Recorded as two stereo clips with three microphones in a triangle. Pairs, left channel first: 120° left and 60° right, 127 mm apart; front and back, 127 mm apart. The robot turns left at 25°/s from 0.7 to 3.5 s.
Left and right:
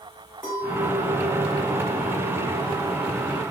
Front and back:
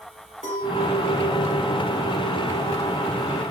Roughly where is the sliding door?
No sliding door in this recording.